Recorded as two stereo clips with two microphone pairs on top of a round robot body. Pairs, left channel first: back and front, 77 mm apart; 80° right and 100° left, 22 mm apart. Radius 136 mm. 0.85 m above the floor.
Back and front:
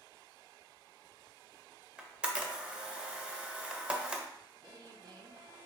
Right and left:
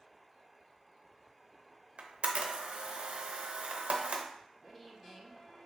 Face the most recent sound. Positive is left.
turn(degrees=5)